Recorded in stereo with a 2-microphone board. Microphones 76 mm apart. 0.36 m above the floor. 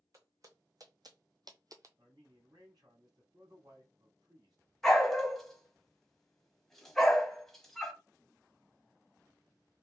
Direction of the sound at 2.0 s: 70° right (ahead or behind).